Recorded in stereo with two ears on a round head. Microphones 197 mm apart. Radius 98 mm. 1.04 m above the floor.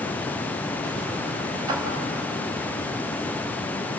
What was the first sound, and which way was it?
A clap, 20° right (ahead or behind).